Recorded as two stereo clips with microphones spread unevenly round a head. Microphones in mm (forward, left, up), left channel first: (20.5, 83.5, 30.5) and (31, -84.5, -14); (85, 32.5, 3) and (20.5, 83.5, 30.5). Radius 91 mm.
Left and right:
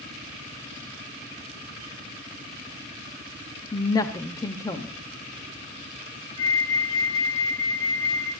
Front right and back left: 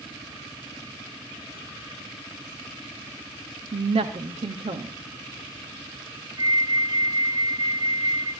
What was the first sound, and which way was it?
A woman speaking, 165° left.